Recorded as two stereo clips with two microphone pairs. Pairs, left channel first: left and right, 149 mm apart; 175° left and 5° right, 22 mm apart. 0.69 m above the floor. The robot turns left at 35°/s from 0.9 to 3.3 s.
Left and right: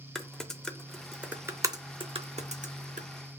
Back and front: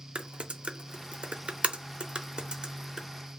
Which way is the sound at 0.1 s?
5° left.